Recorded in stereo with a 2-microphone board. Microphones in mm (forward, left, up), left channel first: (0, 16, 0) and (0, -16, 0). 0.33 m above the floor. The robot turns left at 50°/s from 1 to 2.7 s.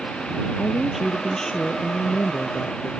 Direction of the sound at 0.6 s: 175° right.